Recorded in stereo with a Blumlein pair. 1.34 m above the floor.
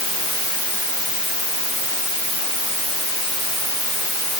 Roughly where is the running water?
No running water in this recording.